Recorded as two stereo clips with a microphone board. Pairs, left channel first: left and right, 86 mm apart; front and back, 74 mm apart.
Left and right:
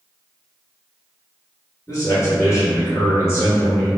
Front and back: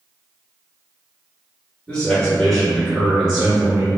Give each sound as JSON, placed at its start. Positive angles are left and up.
{"t": 1.9, "sound": "a man speaking", "azimuth_deg": 65, "distance_m": 1.7}